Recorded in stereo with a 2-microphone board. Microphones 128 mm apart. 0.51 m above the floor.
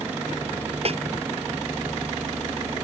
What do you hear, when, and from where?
0.8 s a snare drum: 50° right (ahead or behind)